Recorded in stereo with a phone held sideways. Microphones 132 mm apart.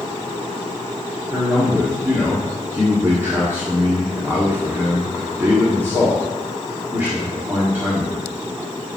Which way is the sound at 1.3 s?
20° right (ahead or behind).